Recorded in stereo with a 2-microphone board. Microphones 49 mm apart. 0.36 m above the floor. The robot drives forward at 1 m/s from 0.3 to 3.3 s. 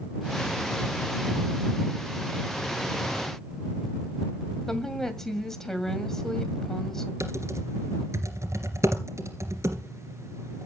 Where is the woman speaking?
10° left (ahead or behind), 2.5 m.